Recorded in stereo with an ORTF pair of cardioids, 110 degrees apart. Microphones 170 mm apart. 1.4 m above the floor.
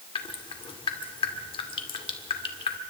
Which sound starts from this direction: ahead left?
Dripping, at 0.1 s.